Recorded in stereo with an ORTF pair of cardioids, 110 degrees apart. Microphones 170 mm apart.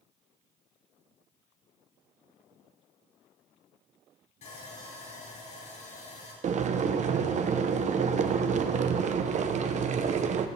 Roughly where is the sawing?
Ahead left.